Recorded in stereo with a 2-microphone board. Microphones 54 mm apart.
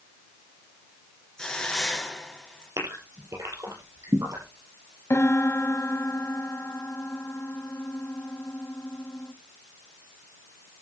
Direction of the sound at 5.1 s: 55° left (ahead or behind).